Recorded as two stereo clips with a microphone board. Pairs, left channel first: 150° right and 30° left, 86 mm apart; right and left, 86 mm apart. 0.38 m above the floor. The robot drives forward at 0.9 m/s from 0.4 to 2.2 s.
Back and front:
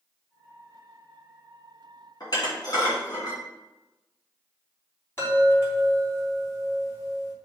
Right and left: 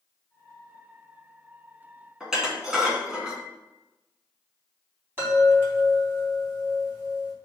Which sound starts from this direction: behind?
Dishes clattering, at 2.2 s.